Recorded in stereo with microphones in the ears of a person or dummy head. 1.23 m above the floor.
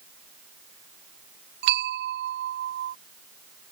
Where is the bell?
60° right (ahead or behind).